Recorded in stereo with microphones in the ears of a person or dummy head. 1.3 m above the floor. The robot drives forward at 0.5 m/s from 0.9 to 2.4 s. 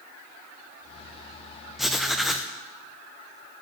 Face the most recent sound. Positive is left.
turn(degrees=-5)  # may be behind; listen again after turning